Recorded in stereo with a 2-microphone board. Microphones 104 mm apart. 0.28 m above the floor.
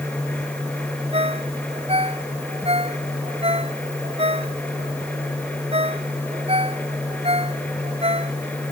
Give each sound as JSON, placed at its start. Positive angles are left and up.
{"t": 1.1, "sound": "a ringtone", "side_deg": -70}